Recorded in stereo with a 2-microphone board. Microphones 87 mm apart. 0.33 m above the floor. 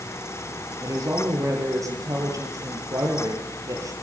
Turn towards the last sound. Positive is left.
turn(degrees=-40)  # may be behind; listen again after turning